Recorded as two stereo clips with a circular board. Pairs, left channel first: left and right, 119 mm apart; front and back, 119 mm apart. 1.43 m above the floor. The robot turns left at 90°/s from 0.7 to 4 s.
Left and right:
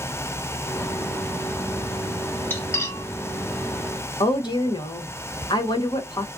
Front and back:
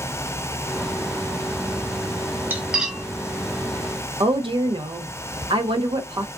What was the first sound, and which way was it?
Cutlery clinking, 135° left.